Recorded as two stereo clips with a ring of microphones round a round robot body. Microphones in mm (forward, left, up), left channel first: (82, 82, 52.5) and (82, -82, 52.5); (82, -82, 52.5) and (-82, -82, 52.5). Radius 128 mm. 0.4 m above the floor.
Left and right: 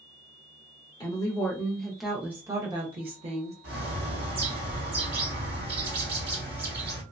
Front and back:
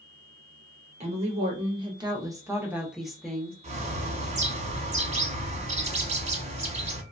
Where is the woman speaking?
150° left, 1.1 m; by 3.5 s 80° right, 1.0 m.